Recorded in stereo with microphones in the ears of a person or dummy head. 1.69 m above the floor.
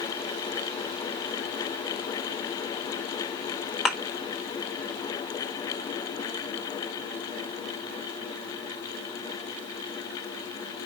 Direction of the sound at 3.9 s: Centre (ahead or behind).